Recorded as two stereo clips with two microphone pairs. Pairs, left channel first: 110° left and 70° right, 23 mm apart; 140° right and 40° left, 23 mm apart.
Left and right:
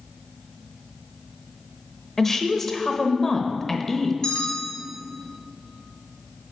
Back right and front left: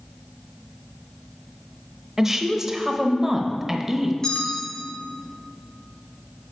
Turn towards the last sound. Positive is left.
turn(degrees=155)